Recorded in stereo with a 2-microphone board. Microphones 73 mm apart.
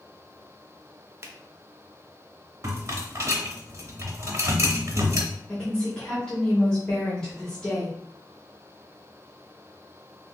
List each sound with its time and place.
1.2 s a finger snap: 35° right (ahead or behind), 0.5 m
2.6 s a rattle: 40° right (ahead or behind), 0.8 m
5.5 s a woman speaking: 15° left (ahead or behind), 1.0 m